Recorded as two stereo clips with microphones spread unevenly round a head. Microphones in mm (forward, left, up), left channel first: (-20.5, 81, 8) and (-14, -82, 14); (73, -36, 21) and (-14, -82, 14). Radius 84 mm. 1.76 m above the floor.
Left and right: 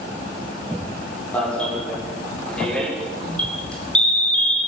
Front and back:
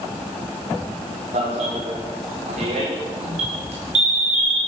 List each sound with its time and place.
1.3 s an alarm: 175° left, 8 m